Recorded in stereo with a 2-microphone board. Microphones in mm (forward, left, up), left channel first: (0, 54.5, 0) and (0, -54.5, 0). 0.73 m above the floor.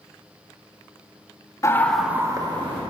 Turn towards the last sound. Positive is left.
turn(degrees=-55)  # may be behind; listen again after turning